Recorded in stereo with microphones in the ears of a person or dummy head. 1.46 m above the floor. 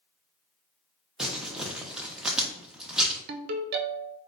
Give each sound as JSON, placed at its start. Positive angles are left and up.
{"t": 1.2, "sound": "crumpling", "side_deg": 0, "distance_m": 0.7}
{"t": 3.3, "sound": "a ringtone", "side_deg": -55, "distance_m": 0.5}